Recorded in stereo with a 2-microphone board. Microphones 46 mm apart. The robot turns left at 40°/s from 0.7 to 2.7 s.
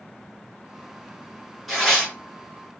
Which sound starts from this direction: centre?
Tearing paper, at 1.7 s.